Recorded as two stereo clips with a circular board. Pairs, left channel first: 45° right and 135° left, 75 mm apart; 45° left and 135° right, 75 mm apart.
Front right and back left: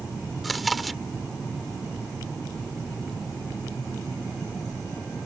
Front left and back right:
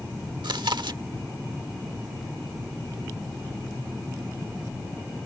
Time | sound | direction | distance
0.4 | chewing | 135° right | ?